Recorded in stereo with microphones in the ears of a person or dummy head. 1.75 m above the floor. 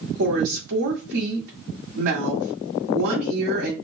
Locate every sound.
0.2 s a woman speaking: 65° right (ahead or behind), 1.6 m